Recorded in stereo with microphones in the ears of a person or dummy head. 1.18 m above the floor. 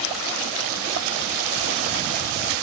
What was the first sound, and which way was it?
Only background noise.